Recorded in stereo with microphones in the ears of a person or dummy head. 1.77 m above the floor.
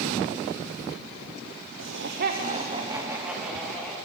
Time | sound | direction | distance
1.8 | laughter | 75° right (ahead or behind) | 1.2 m